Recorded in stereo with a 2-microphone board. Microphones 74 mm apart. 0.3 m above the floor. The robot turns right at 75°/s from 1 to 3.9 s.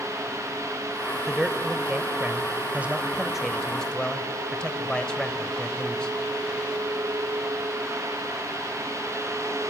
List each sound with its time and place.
1.3 s a man speaking: 5° right (ahead or behind), 1.2 m; by 6.1 s 15° left (ahead or behind), 1.2 m